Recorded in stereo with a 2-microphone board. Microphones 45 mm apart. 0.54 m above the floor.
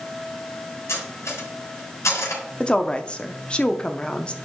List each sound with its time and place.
0.9 s cutlery clinking: 85° left, 3 m
2.6 s a woman speaking: 20° left (ahead or behind), 0.6 m